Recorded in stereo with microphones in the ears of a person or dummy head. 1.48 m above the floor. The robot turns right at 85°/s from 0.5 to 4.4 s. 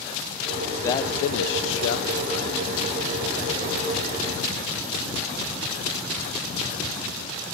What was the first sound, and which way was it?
A man speaking, 15° left.